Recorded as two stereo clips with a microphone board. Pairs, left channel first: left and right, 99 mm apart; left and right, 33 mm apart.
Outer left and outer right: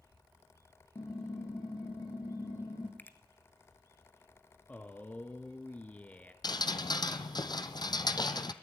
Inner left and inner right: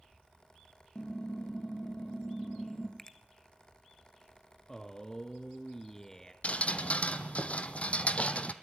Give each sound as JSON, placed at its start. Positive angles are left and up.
{"t": 0.9, "sound": "typing on a keyboard", "side_deg": 45, "distance_m": 4.0}
{"t": 3.0, "sound": "a finger snap", "side_deg": 20, "distance_m": 1.2}
{"t": 4.7, "sound": "a man speaking", "side_deg": 15, "distance_m": 1.4}
{"t": 6.4, "sound": "dripping", "side_deg": 45, "distance_m": 1.2}